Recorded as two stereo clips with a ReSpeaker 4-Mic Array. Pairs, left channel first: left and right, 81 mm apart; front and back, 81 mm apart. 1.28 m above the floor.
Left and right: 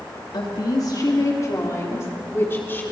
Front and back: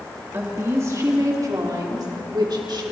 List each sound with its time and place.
0.3 s a woman speaking: 120° left, 2.5 m; by 2.8 s 155° left, 3.5 m